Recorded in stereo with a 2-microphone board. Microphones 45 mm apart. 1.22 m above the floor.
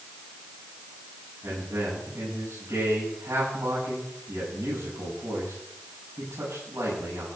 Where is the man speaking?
75° right (ahead or behind), 9 m.